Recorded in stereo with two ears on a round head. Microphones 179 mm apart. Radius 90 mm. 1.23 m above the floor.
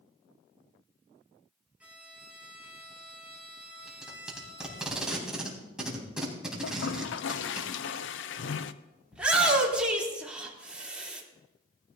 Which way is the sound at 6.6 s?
65° left (ahead or behind).